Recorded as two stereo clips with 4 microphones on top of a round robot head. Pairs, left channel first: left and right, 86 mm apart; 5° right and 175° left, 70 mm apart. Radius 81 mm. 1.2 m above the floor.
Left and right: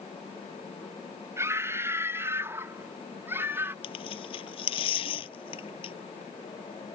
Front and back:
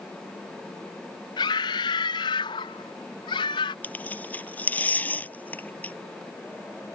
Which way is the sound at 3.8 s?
65° left.